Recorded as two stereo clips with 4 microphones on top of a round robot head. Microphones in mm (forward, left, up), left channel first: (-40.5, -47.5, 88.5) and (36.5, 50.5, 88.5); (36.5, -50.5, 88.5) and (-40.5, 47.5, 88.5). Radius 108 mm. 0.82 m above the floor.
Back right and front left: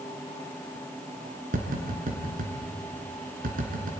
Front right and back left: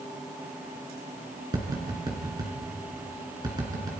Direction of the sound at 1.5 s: 65° left.